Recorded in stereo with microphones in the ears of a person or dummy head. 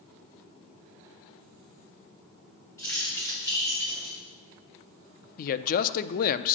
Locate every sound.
2.8 s keys jangling: 15° left (ahead or behind), 2.0 m; by 4.2 s 20° left (ahead or behind), 2.5 m
5.4 s a man speaking: 45° left (ahead or behind), 0.5 m